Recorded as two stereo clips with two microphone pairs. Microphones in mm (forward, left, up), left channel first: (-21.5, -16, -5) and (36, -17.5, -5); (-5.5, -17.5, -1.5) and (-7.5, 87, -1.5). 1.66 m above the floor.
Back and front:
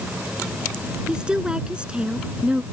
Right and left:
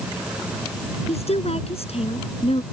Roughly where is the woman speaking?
Right.